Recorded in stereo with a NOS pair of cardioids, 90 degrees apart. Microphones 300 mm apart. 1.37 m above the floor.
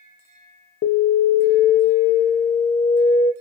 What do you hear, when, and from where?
0.8 s an alarm: 45° left, 0.7 m